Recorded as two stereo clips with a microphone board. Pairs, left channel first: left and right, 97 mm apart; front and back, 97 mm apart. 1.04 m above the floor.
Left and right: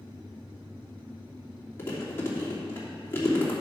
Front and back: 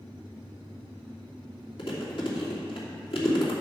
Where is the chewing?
25° left, 2.5 m.